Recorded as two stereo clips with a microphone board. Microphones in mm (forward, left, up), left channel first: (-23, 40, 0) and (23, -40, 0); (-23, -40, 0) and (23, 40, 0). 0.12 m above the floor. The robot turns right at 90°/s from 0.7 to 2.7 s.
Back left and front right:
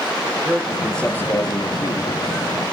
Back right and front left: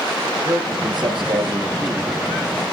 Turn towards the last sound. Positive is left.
turn(degrees=-165)